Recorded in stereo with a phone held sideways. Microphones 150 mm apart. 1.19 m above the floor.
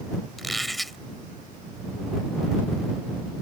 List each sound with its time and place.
0.4 s a squeak: centre (ahead or behind)